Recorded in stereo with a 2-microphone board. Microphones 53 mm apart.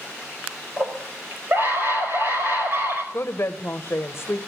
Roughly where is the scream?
Right.